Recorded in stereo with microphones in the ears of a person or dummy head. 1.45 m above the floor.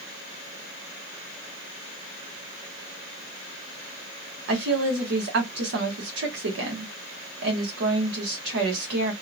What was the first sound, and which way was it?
A woman speaking, 70° right (ahead or behind).